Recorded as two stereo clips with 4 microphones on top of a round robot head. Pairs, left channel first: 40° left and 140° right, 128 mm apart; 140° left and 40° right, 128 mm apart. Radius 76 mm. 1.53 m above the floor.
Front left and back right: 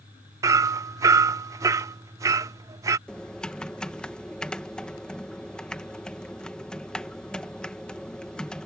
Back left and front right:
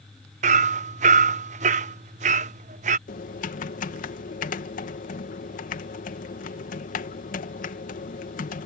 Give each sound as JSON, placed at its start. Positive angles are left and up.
{"t": 0.4, "sound": "hammering", "azimuth_deg": -75}
{"t": 3.1, "sound": "typing on a keyboard", "azimuth_deg": 120}